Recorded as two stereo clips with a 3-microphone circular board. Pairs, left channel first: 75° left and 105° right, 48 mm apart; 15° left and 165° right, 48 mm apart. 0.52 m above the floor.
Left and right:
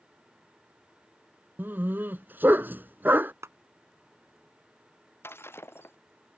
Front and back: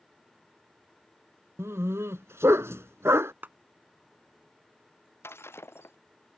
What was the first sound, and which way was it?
A dog barking, 150° right.